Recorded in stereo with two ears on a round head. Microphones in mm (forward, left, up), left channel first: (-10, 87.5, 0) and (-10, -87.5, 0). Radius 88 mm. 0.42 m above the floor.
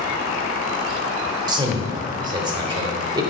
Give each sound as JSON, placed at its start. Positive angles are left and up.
{"t": 1.5, "sound": "a man speaking", "side_deg": -25, "distance_m": 1.3}